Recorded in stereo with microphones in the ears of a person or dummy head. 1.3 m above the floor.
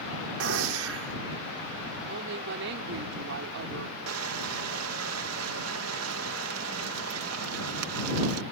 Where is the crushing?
90° right.